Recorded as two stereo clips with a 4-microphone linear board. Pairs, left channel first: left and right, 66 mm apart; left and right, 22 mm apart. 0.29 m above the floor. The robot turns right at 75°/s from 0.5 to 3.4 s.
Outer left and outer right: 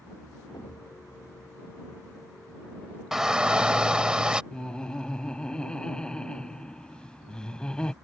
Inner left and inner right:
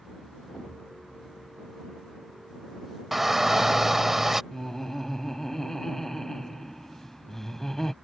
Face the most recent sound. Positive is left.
turn(degrees=15)  # may be behind; listen again after turning